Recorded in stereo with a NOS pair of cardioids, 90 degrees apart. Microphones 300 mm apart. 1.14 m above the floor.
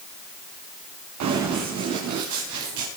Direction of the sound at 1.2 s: 70° right.